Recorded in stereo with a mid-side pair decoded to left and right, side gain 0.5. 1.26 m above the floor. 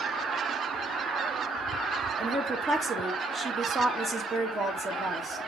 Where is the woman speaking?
30° right, 2.0 m.